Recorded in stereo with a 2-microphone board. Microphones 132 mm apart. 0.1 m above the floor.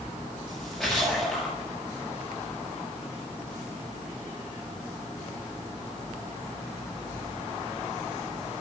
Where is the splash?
5° left (ahead or behind), 8 m.